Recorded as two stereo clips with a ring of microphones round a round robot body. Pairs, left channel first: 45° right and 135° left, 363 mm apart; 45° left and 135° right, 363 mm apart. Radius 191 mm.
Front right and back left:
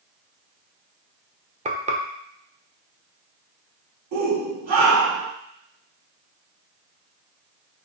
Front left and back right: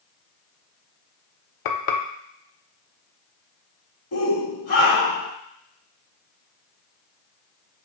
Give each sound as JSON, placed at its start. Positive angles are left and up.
{"t": 1.6, "sound": "frying", "azimuth_deg": 65, "distance_m": 0.9}
{"t": 4.1, "sound": "a shout", "azimuth_deg": 95, "distance_m": 1.8}